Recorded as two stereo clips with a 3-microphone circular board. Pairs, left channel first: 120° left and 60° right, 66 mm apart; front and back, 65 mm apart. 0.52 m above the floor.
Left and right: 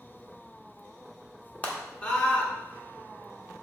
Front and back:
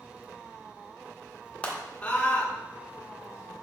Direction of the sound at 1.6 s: 65° left.